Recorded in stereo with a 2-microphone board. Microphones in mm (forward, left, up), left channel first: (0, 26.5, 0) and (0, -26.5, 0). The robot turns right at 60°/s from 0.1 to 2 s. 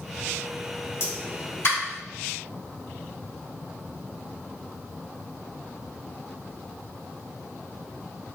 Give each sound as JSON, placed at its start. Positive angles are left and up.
{"t": 1.0, "sound": "a pop", "side_deg": 45, "distance_m": 1.6}